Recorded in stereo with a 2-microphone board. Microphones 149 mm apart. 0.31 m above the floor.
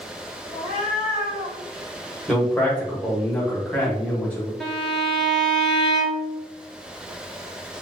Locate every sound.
0.5 s a cat meowing: 45° left (ahead or behind), 1.5 m; by 1.6 s 75° left (ahead or behind), 1.5 m
2.3 s a man speaking: 5° left (ahead or behind), 1.1 m
4.6 s a violin: 5° left (ahead or behind), 0.9 m